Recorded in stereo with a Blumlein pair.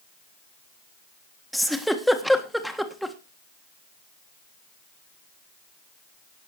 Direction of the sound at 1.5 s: Straight ahead.